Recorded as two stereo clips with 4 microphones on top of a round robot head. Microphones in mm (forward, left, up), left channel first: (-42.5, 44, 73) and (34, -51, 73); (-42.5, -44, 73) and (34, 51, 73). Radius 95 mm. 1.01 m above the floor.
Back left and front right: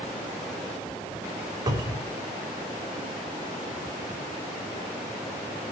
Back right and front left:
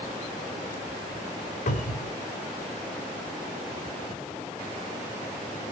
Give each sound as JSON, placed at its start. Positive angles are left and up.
{"t": 1.7, "sound": "a cupboard door", "azimuth_deg": -110, "distance_m": 3.5}